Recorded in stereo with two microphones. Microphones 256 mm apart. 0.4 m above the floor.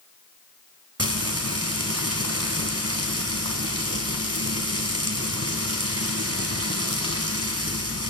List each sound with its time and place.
1.0 s frying: 70° right (ahead or behind), 2.5 m